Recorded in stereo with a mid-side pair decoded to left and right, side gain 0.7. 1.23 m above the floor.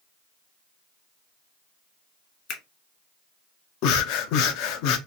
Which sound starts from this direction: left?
Breathing, at 3.8 s.